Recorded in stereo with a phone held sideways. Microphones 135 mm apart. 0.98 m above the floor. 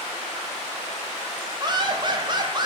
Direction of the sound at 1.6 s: 35° right (ahead or behind).